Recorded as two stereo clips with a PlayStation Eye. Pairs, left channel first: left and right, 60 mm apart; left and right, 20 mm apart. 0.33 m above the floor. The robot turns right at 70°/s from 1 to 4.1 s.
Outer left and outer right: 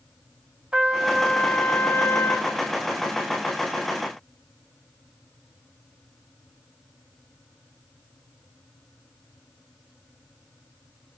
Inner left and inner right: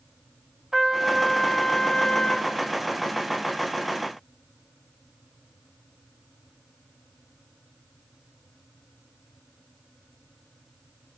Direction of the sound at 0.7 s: 25° right.